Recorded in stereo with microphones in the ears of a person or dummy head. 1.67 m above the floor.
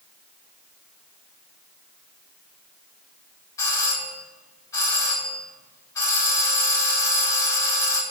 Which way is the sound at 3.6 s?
20° left (ahead or behind).